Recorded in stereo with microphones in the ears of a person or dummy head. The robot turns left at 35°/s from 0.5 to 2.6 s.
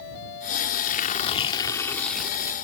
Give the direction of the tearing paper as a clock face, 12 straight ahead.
10 o'clock.